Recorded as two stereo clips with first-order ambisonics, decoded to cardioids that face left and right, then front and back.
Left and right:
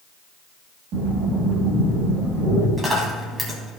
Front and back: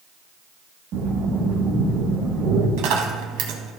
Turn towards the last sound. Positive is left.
turn(degrees=-165)